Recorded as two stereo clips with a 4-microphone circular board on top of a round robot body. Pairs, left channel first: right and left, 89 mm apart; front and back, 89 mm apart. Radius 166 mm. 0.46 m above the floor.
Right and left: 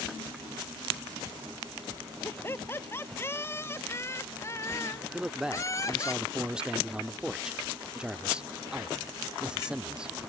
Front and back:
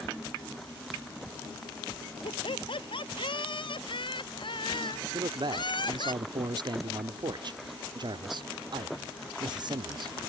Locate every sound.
2.2 s laughter: 25° right; by 6.1 s 35° right
5.1 s a man speaking: 170° left